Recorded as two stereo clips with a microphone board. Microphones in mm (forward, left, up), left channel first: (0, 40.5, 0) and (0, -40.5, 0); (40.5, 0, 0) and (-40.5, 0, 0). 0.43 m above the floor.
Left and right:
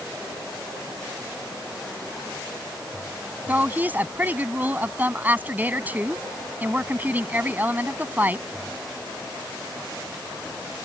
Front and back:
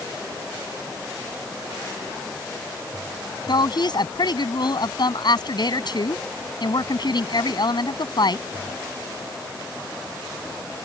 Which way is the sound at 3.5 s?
20° right.